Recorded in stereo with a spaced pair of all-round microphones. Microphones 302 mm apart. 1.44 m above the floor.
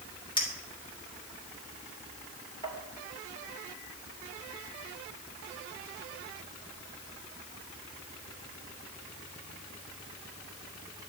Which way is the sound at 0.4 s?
15° left (ahead or behind).